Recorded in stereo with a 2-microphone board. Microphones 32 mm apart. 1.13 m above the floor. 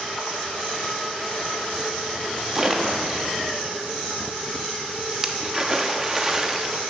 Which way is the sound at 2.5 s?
15° right (ahead or behind).